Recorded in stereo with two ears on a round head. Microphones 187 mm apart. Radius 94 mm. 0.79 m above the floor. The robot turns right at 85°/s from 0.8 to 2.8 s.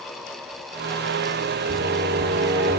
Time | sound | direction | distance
1.7 | singing | 135° right | 2.5 m